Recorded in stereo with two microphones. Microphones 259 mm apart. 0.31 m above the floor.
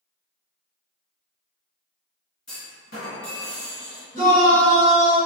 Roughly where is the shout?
Right.